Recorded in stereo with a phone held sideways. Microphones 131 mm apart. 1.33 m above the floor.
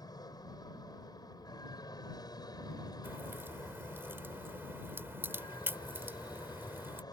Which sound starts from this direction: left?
An aircraft, at 0.0 s.